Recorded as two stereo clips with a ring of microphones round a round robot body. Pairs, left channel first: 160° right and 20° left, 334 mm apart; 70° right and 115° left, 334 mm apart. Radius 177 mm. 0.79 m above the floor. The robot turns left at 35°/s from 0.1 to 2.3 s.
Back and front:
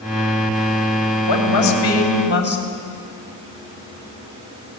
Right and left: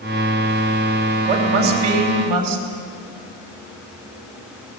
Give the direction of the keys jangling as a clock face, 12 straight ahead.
No keys jangling in this recording.